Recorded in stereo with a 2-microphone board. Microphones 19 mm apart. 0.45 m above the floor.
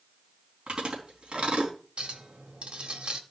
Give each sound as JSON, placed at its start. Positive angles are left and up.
{"t": 0.7, "sound": "chewing", "side_deg": -55, "distance_m": 4.0}
{"t": 2.0, "sound": "a clink", "side_deg": -60, "distance_m": 1.6}